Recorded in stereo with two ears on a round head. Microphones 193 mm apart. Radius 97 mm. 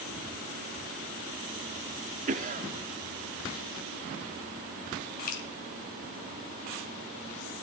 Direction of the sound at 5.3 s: 40° left (ahead or behind).